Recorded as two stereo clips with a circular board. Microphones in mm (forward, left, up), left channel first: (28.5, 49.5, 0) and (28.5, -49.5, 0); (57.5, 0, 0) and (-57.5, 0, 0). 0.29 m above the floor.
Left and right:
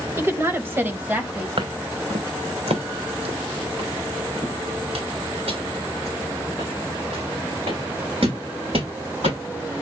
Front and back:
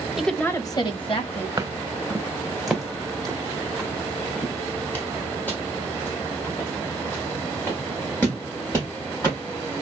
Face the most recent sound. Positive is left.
turn(degrees=-70)